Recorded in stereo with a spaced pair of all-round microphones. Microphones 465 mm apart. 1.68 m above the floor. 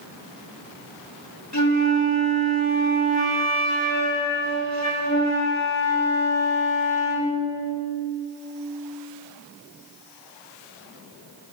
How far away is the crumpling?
No crumpling in this recording.